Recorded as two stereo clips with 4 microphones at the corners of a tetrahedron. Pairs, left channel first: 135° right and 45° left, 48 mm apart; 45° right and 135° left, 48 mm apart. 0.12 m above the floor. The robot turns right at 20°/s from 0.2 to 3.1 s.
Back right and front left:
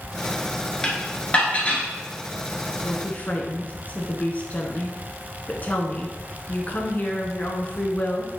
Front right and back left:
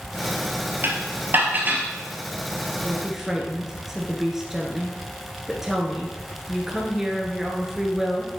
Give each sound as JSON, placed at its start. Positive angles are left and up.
{"t": 0.8, "sound": "dishes clattering", "azimuth_deg": 155, "distance_m": 1.5}
{"t": 2.8, "sound": "a woman speaking", "azimuth_deg": -150, "distance_m": 1.3}